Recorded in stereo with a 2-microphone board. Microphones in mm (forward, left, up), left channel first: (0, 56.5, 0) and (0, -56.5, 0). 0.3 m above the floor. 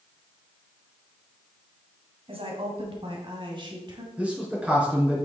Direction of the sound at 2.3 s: 55° right (ahead or behind).